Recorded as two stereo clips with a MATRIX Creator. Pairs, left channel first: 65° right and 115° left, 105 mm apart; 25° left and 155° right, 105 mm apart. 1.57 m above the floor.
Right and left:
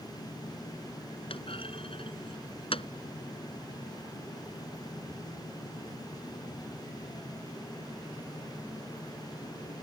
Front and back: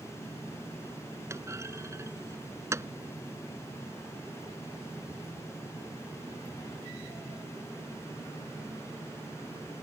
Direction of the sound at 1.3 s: 95° right.